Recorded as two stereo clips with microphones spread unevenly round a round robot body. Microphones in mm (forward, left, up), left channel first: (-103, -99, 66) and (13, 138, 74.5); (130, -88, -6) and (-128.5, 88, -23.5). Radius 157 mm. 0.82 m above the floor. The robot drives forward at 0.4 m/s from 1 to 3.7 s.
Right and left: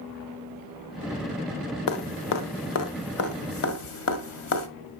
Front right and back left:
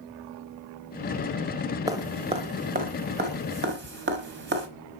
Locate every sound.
1.9 s dripping: 135° right, 0.9 m; by 4.7 s 155° right, 1.5 m